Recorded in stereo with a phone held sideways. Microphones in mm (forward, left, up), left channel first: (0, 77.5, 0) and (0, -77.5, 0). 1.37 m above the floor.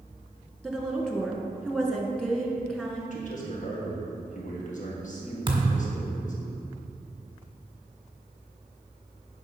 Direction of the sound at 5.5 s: 30° right (ahead or behind).